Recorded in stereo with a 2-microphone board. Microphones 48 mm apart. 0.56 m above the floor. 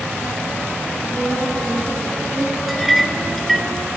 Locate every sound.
1.0 s a woman speaking: 15° left (ahead or behind), 5 m; by 2.5 s 30° left (ahead or behind), 5 m
2.7 s a clink: centre (ahead or behind), 0.7 m